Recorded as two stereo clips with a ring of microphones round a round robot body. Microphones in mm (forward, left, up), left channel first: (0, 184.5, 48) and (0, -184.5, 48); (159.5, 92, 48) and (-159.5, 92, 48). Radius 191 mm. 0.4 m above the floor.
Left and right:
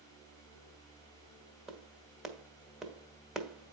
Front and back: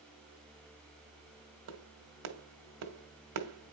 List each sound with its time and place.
1.7 s a clap: straight behind, 1.6 m